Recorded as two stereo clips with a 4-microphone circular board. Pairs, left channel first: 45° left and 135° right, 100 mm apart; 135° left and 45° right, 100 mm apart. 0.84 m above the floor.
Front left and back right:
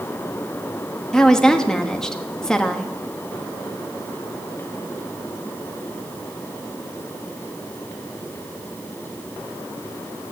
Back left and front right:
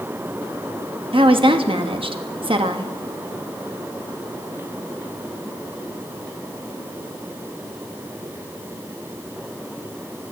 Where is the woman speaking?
40° right, 1.1 m.